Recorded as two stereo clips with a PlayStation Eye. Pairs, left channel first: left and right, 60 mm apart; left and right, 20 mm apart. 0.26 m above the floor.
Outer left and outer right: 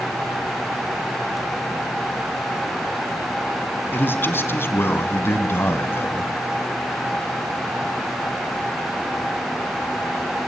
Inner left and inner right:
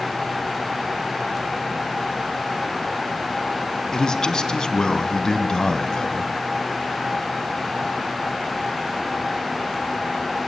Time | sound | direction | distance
3.9 | a man speaking | 35° left (ahead or behind) | 3 m